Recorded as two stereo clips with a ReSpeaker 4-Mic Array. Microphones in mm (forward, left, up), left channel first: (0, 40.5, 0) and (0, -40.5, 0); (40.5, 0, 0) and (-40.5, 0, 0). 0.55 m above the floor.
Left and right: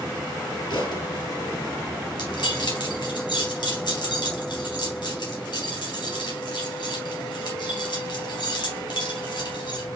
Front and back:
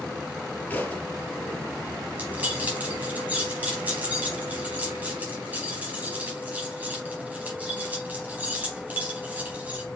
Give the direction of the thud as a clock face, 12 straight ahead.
10 o'clock.